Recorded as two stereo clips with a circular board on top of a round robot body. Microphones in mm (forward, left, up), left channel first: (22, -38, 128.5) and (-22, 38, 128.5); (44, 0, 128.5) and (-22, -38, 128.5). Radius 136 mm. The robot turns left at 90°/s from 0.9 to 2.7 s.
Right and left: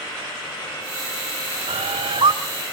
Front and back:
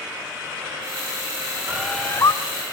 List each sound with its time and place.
1.7 s a bird: 140° left, 1.0 m; by 2.3 s 75° left, 1.0 m